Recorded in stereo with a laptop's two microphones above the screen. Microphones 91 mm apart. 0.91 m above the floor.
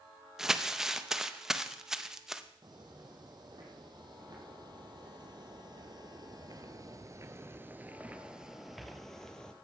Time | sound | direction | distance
0.4 | crumpling | 5° right (ahead or behind) | 0.6 m
2.6 | footsteps | 50° right (ahead or behind) | 3 m